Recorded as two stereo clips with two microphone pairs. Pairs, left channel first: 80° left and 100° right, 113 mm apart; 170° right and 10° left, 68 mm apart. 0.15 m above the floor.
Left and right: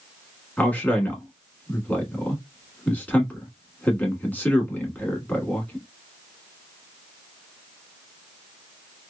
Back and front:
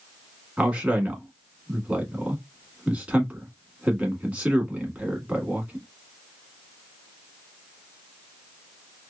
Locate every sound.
0.6 s a man speaking: 40° left, 1.0 m